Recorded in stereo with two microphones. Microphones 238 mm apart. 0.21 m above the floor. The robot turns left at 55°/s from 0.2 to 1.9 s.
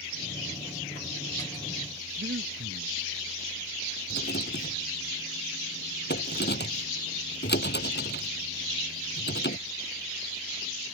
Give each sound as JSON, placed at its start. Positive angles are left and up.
{"t": 2.2, "sound": "breathing", "side_deg": -50}
{"t": 4.1, "sound": "a rattle", "side_deg": 45}